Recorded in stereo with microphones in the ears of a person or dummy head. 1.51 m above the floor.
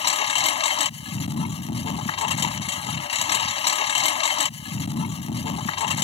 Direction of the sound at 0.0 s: 35° left (ahead or behind).